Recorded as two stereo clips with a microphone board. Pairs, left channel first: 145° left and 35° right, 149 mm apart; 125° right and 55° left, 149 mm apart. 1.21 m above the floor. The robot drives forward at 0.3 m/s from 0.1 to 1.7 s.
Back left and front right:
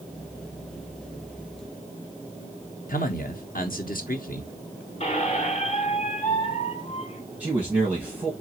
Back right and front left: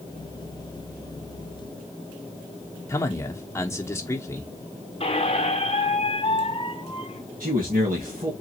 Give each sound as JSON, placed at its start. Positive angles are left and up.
{"t": 2.9, "sound": "a man speaking", "azimuth_deg": 165, "distance_m": 0.8}
{"t": 5.0, "sound": "a squeak", "azimuth_deg": -170, "distance_m": 0.8}
{"t": 7.4, "sound": "a man speaking", "azimuth_deg": 45, "distance_m": 1.8}